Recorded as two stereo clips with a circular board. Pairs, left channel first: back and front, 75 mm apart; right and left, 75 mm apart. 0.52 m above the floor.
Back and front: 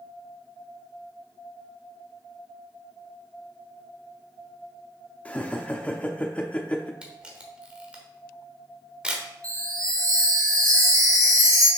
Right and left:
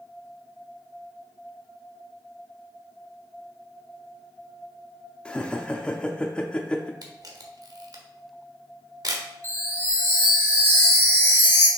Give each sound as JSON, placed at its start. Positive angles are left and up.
{"t": 5.2, "sound": "laughter", "azimuth_deg": -145, "distance_m": 0.7}
{"t": 7.0, "sound": "a camera shutter", "azimuth_deg": 75, "distance_m": 1.1}
{"t": 9.4, "sound": "a chime", "azimuth_deg": 30, "distance_m": 1.4}